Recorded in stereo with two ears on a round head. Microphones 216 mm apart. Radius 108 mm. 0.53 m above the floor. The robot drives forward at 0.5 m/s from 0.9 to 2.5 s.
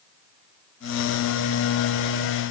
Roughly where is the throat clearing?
I don't hear throat clearing.